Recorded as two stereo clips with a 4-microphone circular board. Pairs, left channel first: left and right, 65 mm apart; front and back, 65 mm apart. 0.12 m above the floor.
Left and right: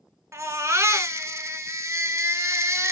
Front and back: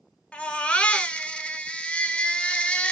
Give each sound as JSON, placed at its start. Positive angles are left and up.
{"t": 0.3, "sound": "a baby crying", "azimuth_deg": -70, "distance_m": 0.6}